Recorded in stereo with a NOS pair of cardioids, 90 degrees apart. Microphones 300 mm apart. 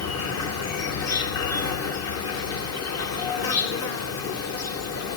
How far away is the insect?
About 1.2 m.